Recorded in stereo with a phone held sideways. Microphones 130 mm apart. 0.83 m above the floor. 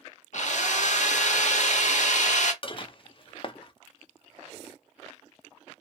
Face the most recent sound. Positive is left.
turn(degrees=40)  # may be behind; listen again after turning